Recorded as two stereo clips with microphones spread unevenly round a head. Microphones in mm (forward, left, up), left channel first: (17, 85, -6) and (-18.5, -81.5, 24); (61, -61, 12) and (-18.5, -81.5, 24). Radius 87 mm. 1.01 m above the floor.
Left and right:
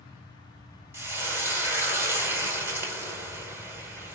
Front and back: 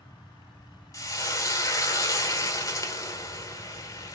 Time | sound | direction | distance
0.9 | frying | 35° right | 1.0 m